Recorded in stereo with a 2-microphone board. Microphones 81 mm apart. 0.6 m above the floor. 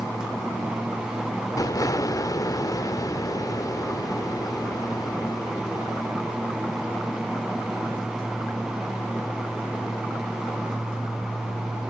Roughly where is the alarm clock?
I don't hear an alarm clock.